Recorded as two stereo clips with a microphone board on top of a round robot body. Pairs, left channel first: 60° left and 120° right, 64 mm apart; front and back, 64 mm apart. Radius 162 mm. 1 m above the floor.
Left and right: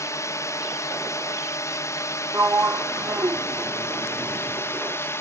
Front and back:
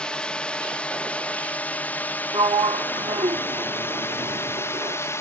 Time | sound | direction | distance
0.0 | a drone | 70° left | ?
2.3 | a sliding door | 175° right | ?